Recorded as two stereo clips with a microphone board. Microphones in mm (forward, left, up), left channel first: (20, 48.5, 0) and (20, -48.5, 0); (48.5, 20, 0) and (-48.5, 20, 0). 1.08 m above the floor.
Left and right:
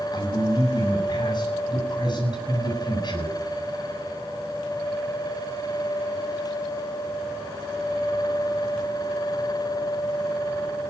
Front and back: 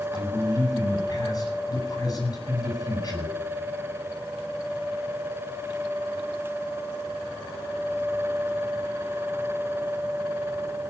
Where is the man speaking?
50° left, 8.5 m.